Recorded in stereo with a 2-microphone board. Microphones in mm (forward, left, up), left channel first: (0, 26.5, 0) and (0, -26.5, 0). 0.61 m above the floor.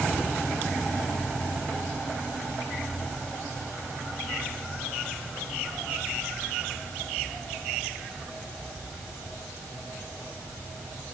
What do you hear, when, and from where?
Only background noise.